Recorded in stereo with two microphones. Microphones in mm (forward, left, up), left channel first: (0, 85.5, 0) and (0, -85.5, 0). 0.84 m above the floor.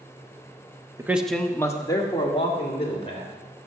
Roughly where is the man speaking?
Centre.